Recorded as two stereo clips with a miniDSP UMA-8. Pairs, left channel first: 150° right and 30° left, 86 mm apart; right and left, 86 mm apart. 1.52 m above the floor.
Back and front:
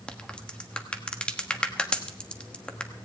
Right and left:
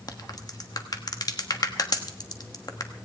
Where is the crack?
75° right, 1.2 m.